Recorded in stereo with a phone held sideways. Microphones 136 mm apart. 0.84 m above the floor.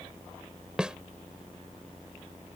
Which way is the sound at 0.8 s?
5° right (ahead or behind).